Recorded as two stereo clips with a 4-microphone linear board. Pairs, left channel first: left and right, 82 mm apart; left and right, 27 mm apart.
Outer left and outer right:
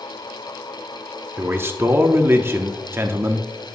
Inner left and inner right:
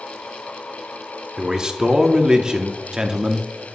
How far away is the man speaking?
About 0.8 m.